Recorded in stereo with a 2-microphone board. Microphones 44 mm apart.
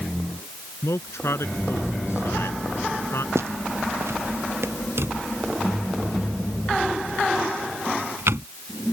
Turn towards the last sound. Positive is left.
turn(degrees=-70)  # may be behind; listen again after turning